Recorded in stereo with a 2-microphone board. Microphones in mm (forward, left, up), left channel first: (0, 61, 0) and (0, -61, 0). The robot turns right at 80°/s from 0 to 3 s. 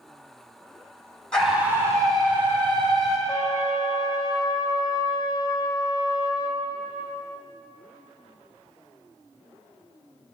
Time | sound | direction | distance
1.3 | a scream | 175° left | 2.0 m
3.3 | a trumpet | 40° left (ahead or behind) | 0.8 m